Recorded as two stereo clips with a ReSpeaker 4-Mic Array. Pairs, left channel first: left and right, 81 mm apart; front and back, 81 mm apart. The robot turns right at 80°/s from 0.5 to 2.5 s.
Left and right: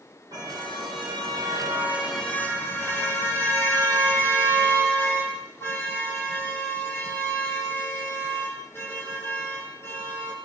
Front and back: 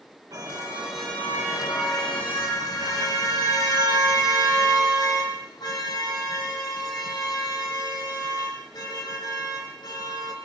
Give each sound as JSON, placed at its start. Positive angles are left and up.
{"t": 0.3, "sound": "a car horn", "azimuth_deg": -130, "distance_m": 8.5}